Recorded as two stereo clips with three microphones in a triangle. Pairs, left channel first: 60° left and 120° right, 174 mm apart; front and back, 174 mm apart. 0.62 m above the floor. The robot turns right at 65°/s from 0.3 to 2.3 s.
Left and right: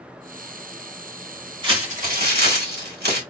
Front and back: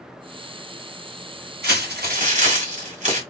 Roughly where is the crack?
I don't hear a crack.